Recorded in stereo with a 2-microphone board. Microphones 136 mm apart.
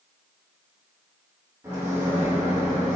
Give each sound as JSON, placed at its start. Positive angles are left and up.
{"t": 1.6, "sound": "a microwave", "side_deg": -20, "distance_m": 0.6}